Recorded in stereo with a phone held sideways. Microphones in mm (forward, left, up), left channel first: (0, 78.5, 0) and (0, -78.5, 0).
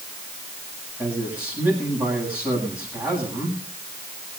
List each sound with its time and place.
1.0 s a man speaking: 10° right (ahead or behind), 8.5 m